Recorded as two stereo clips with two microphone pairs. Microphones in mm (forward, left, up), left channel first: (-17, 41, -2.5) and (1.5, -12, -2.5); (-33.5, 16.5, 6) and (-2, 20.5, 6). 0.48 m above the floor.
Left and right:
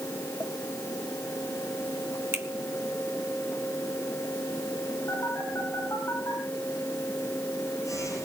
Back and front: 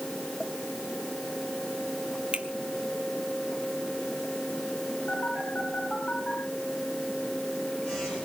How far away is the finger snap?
About 2.0 m.